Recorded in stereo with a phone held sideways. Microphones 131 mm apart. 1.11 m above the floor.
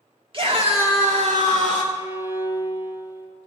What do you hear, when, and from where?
0.3 s a scream: 40° right (ahead or behind), 1.9 m; by 1.8 s 70° right (ahead or behind), 3 m
1.9 s a violin: 20° right (ahead or behind), 1.5 m